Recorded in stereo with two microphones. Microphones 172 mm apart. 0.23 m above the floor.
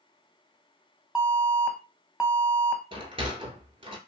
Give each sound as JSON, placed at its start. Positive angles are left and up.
{"t": 1.1, "sound": "an alarm", "side_deg": -5, "distance_m": 0.7}
{"t": 2.9, "sound": "a sliding door", "side_deg": -35, "distance_m": 0.9}